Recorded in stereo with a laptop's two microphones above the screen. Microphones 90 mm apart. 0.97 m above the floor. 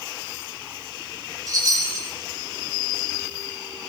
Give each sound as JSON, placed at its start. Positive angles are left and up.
{"t": 1.5, "sound": "a chime", "side_deg": -45, "distance_m": 4.0}